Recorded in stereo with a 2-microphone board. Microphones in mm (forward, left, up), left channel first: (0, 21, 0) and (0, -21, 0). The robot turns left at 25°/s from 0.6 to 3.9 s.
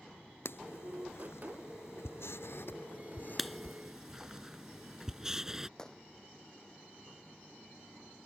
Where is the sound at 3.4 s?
Centre (ahead or behind); by 5.7 s 15° right (ahead or behind).